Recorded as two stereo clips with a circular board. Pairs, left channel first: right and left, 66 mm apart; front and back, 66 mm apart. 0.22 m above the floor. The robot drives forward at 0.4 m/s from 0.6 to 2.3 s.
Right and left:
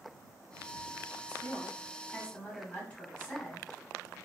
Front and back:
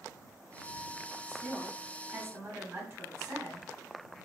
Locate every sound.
1.3 s a woman speaking: 130° right, 1.3 m; by 4.3 s 150° right, 1.5 m